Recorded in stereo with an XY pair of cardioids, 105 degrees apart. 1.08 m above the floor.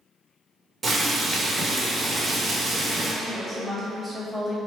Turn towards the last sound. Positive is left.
turn(degrees=0)